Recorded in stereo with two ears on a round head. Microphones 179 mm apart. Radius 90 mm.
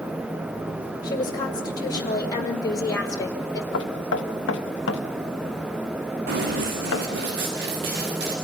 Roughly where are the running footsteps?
Right.